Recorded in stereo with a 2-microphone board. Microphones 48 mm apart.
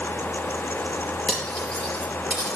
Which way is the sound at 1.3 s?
20° left (ahead or behind).